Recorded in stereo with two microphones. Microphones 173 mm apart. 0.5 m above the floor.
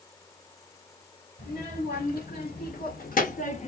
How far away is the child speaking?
About 1.7 m.